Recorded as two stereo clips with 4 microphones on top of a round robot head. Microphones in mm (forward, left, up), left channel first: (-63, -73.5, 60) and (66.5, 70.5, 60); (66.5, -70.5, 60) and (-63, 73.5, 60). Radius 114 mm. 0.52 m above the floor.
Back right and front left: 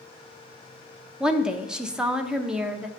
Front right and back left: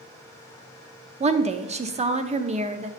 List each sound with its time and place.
1.2 s a woman speaking: 130° left, 0.7 m